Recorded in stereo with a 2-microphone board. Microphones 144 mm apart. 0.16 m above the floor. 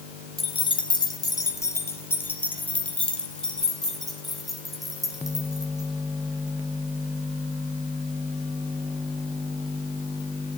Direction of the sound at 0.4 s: 40° left (ahead or behind).